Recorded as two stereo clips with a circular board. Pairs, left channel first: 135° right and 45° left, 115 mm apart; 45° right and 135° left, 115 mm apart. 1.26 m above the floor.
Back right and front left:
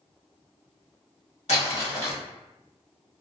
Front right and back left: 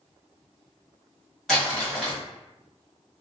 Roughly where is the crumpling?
Behind right.